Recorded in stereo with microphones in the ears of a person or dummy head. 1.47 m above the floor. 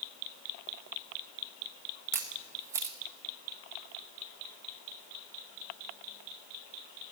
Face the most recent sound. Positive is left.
turn(degrees=-15)  # may be behind; listen again after turning